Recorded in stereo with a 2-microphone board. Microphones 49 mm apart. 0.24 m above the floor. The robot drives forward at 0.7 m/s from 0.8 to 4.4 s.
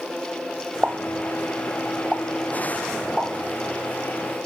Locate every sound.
0.8 s a pop: 25° right (ahead or behind), 0.7 m; by 3.3 s 10° right (ahead or behind), 1.8 m